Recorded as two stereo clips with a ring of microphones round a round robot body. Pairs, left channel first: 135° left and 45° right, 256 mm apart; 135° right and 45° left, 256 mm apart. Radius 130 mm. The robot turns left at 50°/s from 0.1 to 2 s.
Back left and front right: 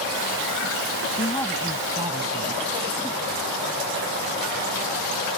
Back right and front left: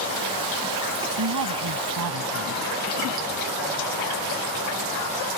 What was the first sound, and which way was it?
A woman speaking, 70° left.